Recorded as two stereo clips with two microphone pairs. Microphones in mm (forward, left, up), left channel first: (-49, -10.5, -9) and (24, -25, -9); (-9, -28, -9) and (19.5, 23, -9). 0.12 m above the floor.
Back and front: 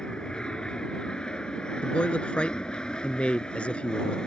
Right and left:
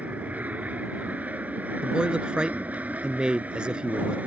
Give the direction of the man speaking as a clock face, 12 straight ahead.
8 o'clock.